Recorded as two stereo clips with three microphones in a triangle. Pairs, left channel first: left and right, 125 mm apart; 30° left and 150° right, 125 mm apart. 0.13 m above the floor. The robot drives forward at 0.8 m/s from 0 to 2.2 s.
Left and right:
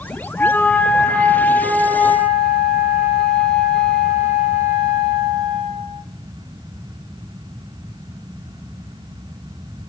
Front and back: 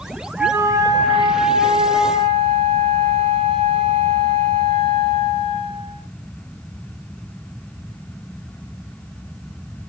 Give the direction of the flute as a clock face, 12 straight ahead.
7 o'clock.